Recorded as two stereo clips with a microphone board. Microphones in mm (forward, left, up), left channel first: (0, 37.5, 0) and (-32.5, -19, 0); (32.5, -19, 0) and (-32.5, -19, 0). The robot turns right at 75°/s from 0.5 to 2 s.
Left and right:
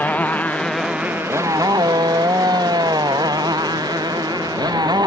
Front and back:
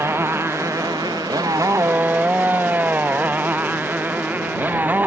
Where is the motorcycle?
130° left; by 5.1 s 115° right.